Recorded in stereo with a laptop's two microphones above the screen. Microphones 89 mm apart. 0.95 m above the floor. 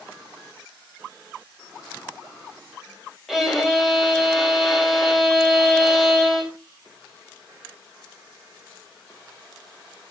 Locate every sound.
3.3 s a violin: 5° right (ahead or behind), 4 m